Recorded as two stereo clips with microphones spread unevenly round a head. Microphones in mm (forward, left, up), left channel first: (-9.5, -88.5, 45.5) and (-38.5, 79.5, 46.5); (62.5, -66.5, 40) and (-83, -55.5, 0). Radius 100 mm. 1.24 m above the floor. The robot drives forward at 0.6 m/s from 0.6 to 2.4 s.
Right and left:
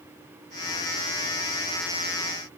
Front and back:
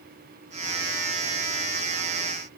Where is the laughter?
I don't hear laughter.